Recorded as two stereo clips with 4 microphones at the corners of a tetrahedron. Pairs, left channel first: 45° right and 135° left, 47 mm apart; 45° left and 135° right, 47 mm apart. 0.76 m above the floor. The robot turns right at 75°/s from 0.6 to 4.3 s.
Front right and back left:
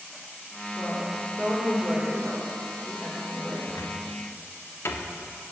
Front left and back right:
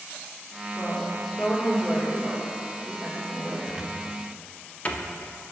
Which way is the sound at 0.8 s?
105° left.